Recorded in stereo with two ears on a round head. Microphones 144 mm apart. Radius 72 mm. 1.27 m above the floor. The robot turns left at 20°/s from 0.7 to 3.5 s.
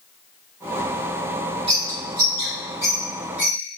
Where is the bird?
40° right (ahead or behind), 1.7 m; by 3.8 s 5° right (ahead or behind), 1.7 m.